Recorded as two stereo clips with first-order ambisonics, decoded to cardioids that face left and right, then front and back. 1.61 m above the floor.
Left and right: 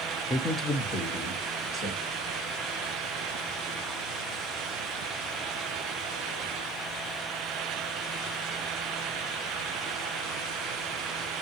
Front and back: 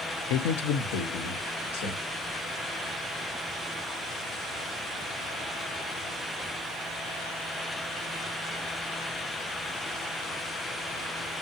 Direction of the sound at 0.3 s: Straight ahead.